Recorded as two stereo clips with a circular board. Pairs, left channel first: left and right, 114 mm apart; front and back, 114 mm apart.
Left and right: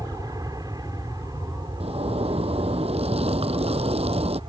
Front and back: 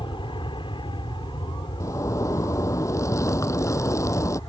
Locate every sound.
0.0 s an aircraft: 35° right; by 4.5 s 45° right
1.8 s a zipper: 65° right